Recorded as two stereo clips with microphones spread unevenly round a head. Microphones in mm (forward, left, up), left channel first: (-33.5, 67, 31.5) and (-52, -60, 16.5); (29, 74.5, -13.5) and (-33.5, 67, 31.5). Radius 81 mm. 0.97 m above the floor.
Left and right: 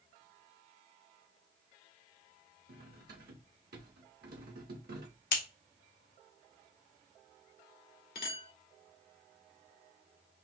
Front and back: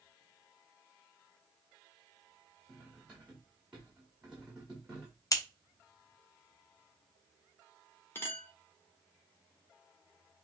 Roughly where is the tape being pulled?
No tape being pulled in this recording.